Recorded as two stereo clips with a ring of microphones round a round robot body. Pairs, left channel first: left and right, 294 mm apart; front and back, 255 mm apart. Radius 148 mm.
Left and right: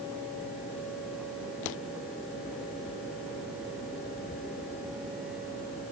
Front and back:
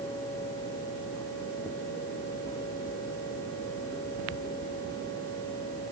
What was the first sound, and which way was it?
Only background noise.